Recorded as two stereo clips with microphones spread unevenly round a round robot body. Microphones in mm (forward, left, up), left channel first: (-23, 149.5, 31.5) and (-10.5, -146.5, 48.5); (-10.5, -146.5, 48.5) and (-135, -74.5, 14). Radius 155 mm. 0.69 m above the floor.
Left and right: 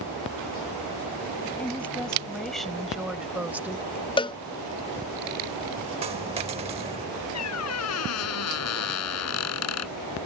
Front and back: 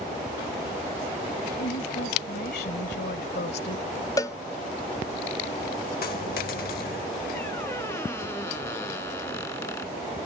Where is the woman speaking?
10° left; by 3.9 s 5° right.